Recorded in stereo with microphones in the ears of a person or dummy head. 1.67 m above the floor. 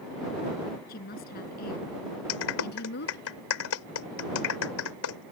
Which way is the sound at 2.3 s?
80° left.